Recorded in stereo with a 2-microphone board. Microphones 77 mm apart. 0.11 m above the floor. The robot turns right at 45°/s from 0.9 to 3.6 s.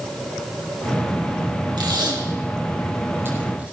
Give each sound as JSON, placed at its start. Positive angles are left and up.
{"t": 1.8, "sound": "tape being pulled", "side_deg": -75, "distance_m": 6.0}